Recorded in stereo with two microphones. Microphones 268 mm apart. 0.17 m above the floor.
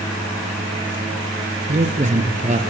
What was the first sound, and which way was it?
A man speaking, 25° right (ahead or behind).